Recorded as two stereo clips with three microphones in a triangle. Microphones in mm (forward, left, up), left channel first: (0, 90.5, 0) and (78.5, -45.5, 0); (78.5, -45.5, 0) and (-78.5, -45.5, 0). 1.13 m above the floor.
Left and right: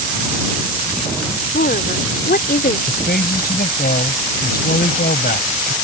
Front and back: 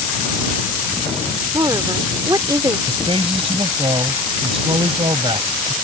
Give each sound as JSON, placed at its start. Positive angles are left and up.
{"t": 1.5, "sound": "a woman speaking", "azimuth_deg": 115}
{"t": 2.9, "sound": "a man speaking", "azimuth_deg": 125}